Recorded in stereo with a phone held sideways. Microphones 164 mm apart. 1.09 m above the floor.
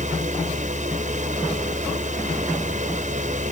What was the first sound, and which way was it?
A fan, 50° right (ahead or behind).